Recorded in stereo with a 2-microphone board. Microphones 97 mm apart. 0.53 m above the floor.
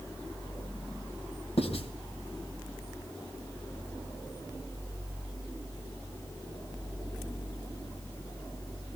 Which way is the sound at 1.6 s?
75° left (ahead or behind).